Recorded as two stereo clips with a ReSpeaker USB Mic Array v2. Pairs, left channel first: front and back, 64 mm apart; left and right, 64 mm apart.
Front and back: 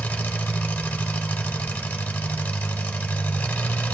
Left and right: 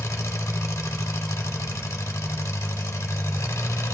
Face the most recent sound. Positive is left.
turn(degrees=65)